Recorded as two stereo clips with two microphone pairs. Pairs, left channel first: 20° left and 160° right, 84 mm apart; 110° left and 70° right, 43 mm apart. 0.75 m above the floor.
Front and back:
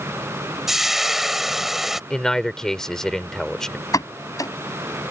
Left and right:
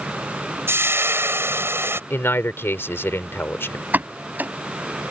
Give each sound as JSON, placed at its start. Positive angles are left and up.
{"t": 0.7, "sound": "frying", "azimuth_deg": -70}
{"t": 2.1, "sound": "a man speaking", "azimuth_deg": 105}
{"t": 3.9, "sound": "a pop", "azimuth_deg": -25}